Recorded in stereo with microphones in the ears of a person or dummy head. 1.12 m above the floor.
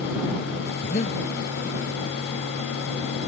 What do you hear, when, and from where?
0.8 s breathing: 35° left (ahead or behind)